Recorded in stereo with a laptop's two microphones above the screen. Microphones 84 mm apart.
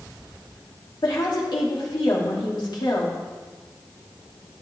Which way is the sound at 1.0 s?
75° left (ahead or behind).